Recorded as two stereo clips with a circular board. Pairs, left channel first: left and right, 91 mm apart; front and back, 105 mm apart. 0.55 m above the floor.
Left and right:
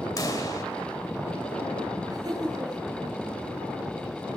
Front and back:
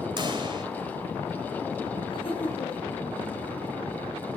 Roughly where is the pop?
Behind left.